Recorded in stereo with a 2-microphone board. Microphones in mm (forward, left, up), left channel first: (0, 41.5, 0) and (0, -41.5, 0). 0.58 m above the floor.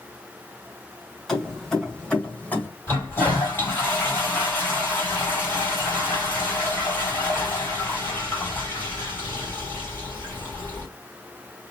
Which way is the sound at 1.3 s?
5° left (ahead or behind).